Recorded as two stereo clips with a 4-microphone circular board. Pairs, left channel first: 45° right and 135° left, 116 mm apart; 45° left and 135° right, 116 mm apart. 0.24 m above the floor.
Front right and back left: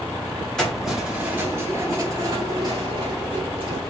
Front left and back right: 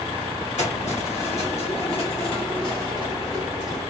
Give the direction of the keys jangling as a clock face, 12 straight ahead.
11 o'clock.